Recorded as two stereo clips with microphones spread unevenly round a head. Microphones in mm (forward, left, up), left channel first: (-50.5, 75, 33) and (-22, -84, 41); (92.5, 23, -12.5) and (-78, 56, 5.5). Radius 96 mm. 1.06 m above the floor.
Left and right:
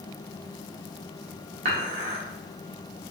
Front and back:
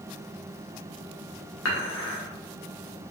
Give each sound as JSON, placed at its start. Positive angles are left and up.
{"t": 1.6, "sound": "dishes clattering", "azimuth_deg": -25, "distance_m": 1.1}